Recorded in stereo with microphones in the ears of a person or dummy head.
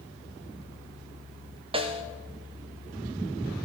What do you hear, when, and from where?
1.7 s a snare drum: 25° right (ahead or behind), 0.8 m